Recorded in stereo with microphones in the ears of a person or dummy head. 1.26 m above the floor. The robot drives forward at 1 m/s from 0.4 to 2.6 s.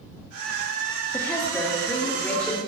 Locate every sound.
1.1 s a woman speaking: 20° left (ahead or behind), 1.7 m; by 2.6 s 10° left (ahead or behind), 3 m